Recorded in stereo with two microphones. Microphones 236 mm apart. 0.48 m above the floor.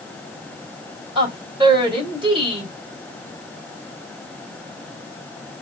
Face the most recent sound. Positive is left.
turn(degrees=-20)  # may be behind; listen again after turning